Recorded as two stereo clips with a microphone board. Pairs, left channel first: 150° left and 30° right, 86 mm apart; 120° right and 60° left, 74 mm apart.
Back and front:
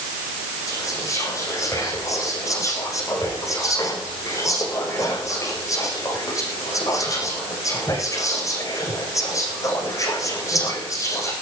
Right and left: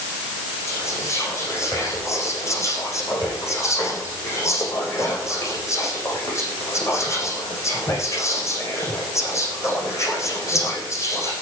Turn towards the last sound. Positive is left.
turn(degrees=-165)